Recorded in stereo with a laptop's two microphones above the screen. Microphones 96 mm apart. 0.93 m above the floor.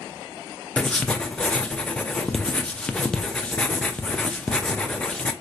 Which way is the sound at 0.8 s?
10° left (ahead or behind).